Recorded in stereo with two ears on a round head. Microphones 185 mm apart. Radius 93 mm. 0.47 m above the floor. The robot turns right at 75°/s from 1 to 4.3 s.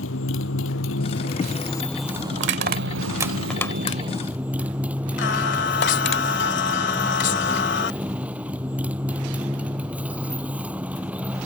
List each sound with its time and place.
0.0 s a motorcycle: 105° left; by 11.5 s 5° right
2.4 s crushing: 65° right (ahead or behind); by 6.2 s 55° left (ahead or behind)
5.2 s singing: 60° left (ahead or behind)